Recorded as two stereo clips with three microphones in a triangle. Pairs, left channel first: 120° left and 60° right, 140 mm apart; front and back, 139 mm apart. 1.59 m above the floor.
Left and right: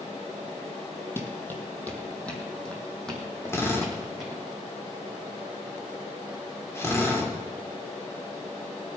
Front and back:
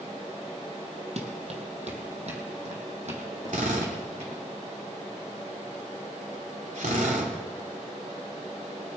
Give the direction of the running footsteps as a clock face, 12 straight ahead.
6 o'clock.